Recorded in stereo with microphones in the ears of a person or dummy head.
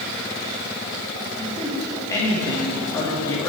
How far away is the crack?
I don't hear a crack.